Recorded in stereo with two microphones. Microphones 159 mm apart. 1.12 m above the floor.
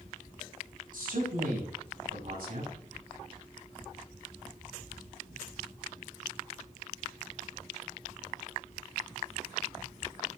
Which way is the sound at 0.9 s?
90° right.